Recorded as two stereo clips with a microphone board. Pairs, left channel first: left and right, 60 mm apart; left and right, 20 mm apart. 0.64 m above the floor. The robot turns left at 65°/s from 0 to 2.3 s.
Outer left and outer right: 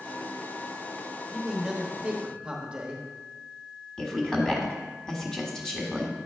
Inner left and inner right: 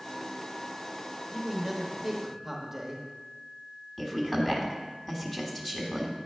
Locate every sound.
1.3 s a man speaking: centre (ahead or behind), 0.9 m; by 3.0 s 20° right (ahead or behind), 0.9 m
4.0 s a woman speaking: 10° left (ahead or behind), 1.2 m